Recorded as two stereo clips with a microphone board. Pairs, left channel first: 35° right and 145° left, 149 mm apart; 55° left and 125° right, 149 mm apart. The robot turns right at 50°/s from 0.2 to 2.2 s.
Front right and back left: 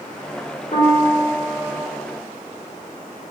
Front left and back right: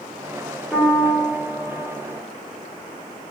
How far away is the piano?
About 0.9 m.